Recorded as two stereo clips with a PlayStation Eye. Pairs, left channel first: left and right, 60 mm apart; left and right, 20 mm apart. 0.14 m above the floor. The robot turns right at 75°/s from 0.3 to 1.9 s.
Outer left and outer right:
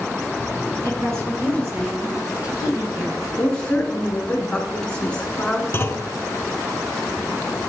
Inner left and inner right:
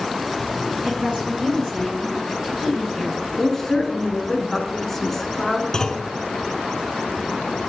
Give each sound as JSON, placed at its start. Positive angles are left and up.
{"t": 0.8, "sound": "a woman speaking", "azimuth_deg": -110, "distance_m": 1.9}
{"t": 3.4, "sound": "a woman speaking", "side_deg": 20, "distance_m": 1.2}
{"t": 5.7, "sound": "a clunk", "side_deg": 35, "distance_m": 0.5}